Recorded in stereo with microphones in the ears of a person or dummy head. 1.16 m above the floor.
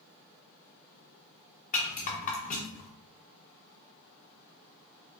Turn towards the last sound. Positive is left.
turn(degrees=50)  # may be behind; listen again after turning